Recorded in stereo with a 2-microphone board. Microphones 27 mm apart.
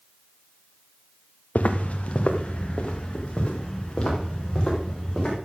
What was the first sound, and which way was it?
Footsteps, 60° left (ahead or behind).